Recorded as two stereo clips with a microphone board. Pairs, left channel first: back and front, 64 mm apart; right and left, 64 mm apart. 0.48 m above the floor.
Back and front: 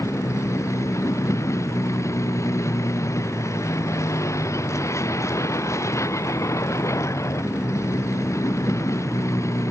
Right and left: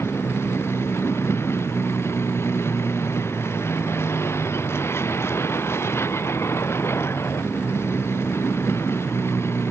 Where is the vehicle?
140° right.